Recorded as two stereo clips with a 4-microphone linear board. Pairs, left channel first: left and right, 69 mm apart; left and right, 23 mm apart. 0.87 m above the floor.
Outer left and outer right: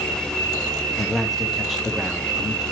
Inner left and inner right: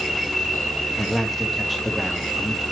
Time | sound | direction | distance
1.0 | a man speaking | centre (ahead or behind) | 1.1 m